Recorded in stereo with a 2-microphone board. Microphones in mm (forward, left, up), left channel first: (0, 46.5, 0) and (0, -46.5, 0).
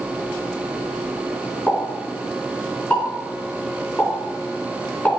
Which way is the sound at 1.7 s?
15° left (ahead or behind).